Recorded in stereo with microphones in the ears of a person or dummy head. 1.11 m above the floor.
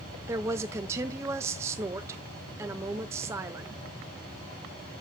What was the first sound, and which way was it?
A woman speaking, 15° right (ahead or behind).